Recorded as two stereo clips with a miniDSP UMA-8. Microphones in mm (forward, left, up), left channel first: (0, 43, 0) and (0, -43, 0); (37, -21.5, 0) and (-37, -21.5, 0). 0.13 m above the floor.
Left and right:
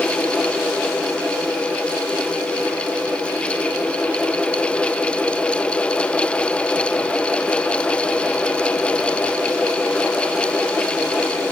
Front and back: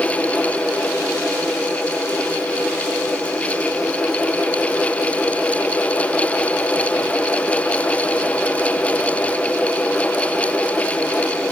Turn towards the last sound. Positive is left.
No sound to turn to.